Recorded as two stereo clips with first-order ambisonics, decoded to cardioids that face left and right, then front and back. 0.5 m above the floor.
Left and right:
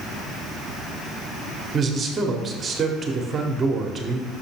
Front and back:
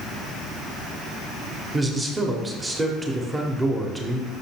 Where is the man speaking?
120° right, 0.8 m.